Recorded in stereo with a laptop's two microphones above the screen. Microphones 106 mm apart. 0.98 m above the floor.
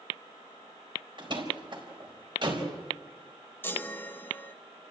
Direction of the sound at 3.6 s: 20° left (ahead or behind).